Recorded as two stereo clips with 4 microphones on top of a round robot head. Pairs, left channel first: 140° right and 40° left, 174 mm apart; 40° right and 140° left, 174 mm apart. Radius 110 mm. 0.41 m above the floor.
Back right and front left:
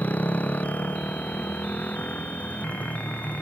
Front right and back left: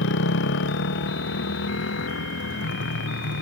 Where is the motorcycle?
55° right.